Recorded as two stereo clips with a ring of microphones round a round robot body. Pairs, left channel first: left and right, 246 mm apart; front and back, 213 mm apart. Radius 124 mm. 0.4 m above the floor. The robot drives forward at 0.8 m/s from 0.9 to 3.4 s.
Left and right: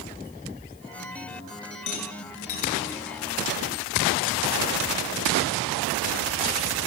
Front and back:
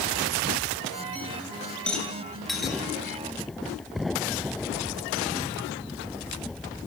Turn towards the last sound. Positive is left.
turn(degrees=95)